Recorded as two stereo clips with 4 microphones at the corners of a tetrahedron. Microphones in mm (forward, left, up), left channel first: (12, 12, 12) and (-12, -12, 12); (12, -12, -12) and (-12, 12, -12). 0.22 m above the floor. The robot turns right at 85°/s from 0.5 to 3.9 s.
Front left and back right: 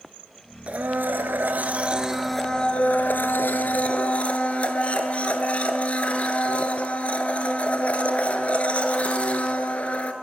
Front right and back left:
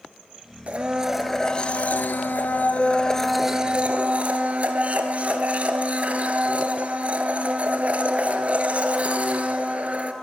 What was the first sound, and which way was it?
A blender, 175° left.